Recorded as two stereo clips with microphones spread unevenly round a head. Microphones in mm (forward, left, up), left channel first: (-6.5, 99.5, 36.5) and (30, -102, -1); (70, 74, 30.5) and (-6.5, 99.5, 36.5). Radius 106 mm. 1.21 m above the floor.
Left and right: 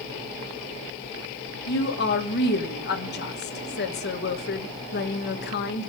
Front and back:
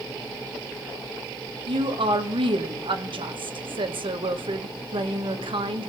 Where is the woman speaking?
145° left, 1.1 m.